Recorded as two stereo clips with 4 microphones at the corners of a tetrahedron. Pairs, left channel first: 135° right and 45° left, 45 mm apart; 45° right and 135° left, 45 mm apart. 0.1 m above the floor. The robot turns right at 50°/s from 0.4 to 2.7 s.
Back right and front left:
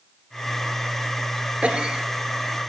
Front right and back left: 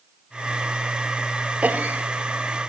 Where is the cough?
95° left, 1.8 m; by 2.7 s 150° left, 1.8 m.